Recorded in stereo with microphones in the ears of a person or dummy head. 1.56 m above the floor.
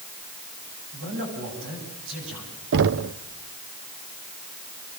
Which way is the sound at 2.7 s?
60° right (ahead or behind).